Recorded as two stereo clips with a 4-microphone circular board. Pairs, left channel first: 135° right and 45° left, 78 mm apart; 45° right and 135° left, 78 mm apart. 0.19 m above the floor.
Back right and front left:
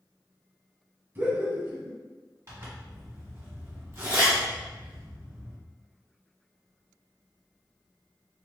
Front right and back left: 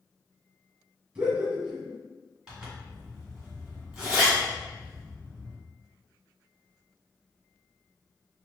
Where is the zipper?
65° left, 1.4 m.